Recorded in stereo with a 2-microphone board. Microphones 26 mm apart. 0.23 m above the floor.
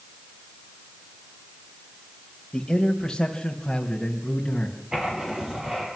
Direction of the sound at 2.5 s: 20° left (ahead or behind).